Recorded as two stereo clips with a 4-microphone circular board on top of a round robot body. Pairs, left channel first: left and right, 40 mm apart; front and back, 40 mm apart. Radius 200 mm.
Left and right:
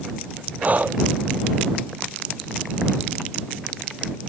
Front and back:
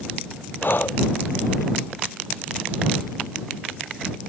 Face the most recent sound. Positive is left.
turn(degrees=-40)